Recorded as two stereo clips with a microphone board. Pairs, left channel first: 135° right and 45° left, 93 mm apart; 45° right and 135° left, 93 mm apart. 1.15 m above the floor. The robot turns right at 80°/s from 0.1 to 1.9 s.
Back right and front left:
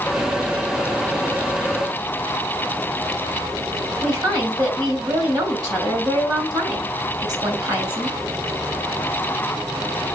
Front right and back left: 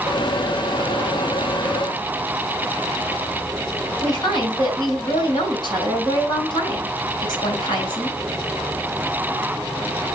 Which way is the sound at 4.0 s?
Straight ahead.